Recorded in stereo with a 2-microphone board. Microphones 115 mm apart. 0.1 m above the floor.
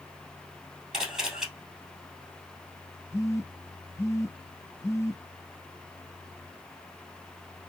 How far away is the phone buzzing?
About 0.6 m.